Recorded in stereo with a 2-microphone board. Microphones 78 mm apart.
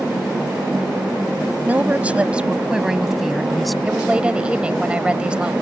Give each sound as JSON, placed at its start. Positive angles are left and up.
{"t": 1.6, "sound": "a woman speaking", "side_deg": -20}
{"t": 3.9, "sound": "a woman speaking", "side_deg": -15}